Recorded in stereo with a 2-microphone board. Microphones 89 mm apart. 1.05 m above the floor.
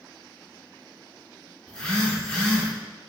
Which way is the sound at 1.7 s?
10° left (ahead or behind).